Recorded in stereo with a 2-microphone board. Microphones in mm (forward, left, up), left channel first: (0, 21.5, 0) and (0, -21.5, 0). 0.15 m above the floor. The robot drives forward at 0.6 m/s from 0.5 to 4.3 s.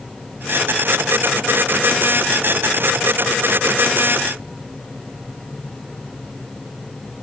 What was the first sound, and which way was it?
Only background noise.